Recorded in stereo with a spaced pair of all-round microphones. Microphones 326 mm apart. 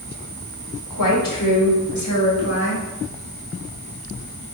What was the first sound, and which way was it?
A woman speaking, 75° left (ahead or behind).